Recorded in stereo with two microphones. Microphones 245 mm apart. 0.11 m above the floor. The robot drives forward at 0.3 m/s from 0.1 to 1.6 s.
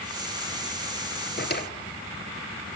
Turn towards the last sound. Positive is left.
turn(degrees=40)  # may be behind; listen again after turning